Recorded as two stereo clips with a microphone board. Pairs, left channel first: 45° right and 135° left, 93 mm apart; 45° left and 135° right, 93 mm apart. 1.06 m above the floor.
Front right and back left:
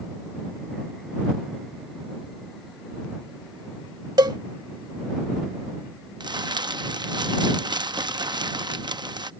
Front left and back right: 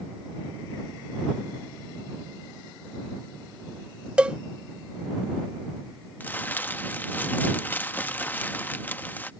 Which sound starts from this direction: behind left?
A cowbell, at 4.2 s.